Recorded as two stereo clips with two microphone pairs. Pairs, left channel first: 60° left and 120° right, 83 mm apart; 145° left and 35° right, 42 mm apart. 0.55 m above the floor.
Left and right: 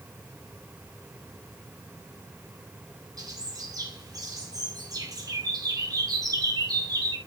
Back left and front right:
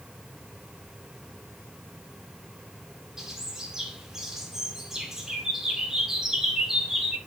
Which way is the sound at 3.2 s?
105° right.